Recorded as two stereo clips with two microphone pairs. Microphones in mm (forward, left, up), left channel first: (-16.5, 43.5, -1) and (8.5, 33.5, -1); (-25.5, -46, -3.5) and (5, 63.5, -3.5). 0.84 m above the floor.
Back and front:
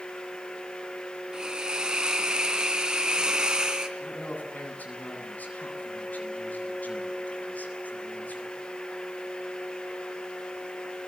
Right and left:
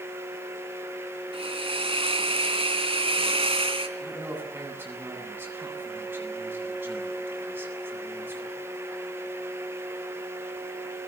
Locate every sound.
1.3 s a hiss: 40° left, 3.5 m
4.0 s a man speaking: 145° left, 8.5 m